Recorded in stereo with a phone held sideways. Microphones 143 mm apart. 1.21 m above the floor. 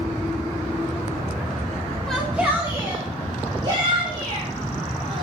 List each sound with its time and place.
2.1 s a shout: 5° left (ahead or behind), 1.1 m; by 5.2 s 35° right (ahead or behind), 5.5 m